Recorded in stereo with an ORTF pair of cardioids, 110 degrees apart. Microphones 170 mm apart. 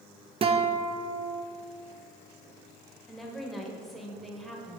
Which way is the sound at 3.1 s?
Straight ahead.